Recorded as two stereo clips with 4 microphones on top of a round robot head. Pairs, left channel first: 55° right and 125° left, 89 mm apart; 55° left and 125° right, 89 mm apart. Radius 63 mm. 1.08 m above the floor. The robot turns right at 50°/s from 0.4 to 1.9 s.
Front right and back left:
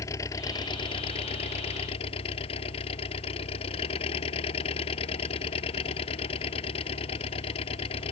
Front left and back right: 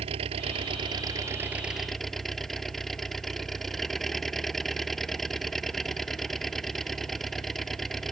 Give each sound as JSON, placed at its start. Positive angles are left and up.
{"t": 0.0, "sound": "an engine running", "azimuth_deg": -110}